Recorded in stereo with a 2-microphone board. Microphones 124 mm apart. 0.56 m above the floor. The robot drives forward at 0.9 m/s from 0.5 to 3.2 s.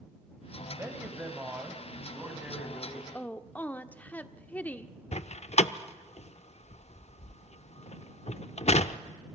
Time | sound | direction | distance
0.7 | a man speaking | 20° right (ahead or behind) | 3 m
3.1 | a woman speaking | 15° left (ahead or behind) | 0.9 m
5.1 | a door slam | 60° left (ahead or behind) | 0.6 m